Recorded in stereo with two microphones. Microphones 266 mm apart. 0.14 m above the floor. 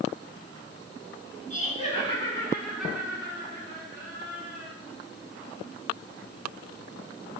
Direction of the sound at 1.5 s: 30° left (ahead or behind).